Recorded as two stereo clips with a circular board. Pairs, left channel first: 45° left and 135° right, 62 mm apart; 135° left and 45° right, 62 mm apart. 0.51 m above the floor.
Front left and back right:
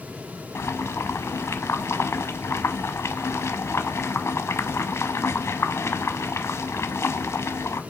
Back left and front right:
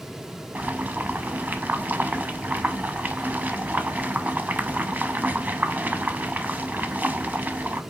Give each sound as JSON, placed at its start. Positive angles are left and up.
{"t": 0.6, "sound": "boiling", "azimuth_deg": 10, "distance_m": 0.5}